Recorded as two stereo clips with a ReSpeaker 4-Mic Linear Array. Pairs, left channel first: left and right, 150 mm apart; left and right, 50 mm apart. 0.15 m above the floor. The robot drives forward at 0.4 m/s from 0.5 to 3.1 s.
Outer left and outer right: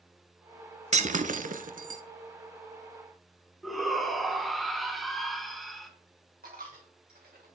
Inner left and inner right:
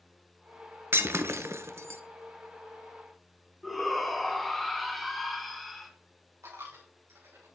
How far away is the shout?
About 1.3 m.